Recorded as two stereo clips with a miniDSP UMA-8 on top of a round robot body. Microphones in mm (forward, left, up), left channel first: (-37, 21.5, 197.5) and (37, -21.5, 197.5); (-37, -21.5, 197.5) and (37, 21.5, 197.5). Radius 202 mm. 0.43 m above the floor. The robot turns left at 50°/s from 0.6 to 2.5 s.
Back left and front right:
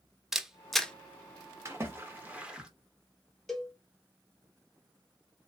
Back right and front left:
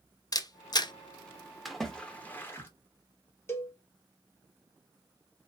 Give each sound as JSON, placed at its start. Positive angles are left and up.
{"t": 0.3, "sound": "a camera shutter", "azimuth_deg": -115, "distance_m": 0.7}
{"t": 1.6, "sound": "a splash", "azimuth_deg": -60, "distance_m": 1.4}
{"t": 3.5, "sound": "a cowbell", "azimuth_deg": -125, "distance_m": 1.1}